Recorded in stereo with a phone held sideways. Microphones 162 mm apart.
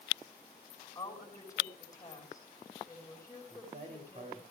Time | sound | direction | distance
0.9 | a woman speaking | 20° left (ahead or behind) | 6 m
3.5 | a man speaking | 50° right (ahead or behind) | 3 m